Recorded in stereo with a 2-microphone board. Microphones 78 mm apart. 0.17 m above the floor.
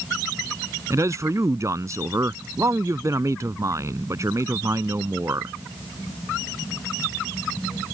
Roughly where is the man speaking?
Right.